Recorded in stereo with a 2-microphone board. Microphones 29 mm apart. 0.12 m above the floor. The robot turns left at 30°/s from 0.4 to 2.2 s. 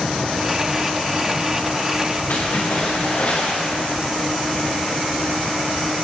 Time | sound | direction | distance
2.3 | a splash | 80° left | 4.5 m